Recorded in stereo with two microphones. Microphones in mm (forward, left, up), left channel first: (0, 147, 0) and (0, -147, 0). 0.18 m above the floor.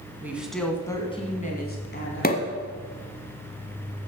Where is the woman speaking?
10° right (ahead or behind), 1.6 m; by 2.6 s 50° left (ahead or behind), 1.9 m.